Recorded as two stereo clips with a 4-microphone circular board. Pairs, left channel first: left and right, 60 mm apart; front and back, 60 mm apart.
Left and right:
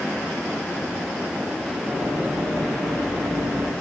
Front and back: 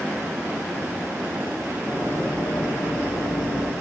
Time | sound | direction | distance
1.9 | running footsteps | 30° right | 6.5 m